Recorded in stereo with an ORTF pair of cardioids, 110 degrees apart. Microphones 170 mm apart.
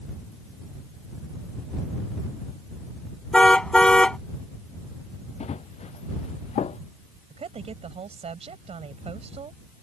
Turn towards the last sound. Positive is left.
turn(degrees=-40)